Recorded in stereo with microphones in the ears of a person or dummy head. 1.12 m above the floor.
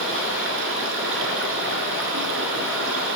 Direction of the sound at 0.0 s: 75° right (ahead or behind).